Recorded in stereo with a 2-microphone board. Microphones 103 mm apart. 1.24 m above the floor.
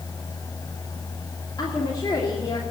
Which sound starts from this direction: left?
A woman speaking, at 1.6 s.